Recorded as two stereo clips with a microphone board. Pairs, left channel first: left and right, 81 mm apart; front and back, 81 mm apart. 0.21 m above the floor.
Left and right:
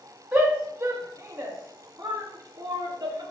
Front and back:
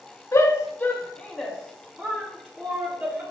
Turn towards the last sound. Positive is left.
turn(degrees=-125)